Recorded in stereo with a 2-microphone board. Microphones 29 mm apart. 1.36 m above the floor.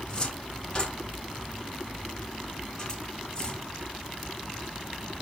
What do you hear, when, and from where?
0.1 s a cupboard door: 25° left (ahead or behind), 4.5 m